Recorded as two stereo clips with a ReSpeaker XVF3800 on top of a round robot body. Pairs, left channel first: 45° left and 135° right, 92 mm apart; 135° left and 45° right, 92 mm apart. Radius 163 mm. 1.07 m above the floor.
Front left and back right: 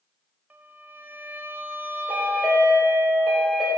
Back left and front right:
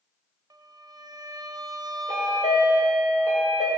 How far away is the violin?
About 0.8 m.